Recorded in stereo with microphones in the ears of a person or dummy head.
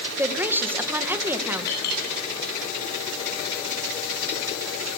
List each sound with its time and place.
0.2 s a woman speaking: 15° right (ahead or behind), 1.7 m
1.7 s a clink: 55° left (ahead or behind), 9.5 m